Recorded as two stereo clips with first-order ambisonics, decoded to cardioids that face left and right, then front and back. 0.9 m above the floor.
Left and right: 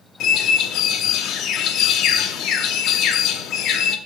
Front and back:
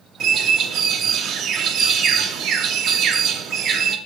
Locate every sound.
0.2 s a bird: 130° left, 0.6 m